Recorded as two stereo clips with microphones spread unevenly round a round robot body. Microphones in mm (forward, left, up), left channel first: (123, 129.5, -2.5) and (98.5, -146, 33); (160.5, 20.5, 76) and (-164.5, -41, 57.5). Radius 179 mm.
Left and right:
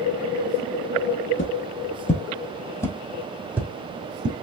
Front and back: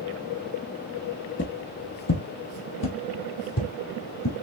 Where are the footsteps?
50° left, 1.4 m; by 4.3 s 30° right, 1.8 m.